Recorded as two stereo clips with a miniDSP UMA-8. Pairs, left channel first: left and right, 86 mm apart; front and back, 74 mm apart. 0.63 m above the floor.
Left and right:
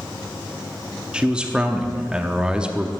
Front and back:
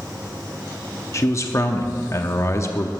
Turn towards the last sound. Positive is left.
turn(degrees=-15)